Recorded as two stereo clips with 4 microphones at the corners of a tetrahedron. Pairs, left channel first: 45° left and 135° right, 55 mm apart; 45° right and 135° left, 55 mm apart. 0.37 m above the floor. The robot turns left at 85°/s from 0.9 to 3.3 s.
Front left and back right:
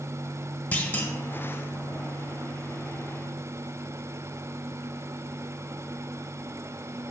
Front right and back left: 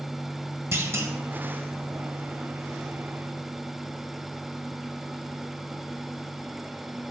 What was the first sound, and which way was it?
A clunk, 105° left.